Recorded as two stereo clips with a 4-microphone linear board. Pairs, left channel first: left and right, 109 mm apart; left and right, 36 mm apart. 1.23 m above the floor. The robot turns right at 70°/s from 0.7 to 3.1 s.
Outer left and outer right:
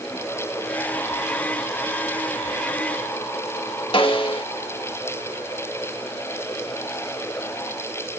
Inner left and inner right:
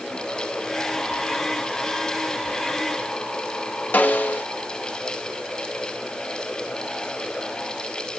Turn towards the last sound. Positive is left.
turn(degrees=55)  # may be behind; listen again after turning